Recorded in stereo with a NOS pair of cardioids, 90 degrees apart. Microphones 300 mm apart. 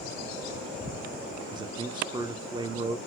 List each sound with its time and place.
1.5 s a man speaking: 15° right, 0.7 m